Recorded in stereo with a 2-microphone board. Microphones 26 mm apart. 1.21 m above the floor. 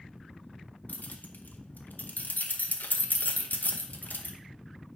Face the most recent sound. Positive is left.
turn(degrees=80)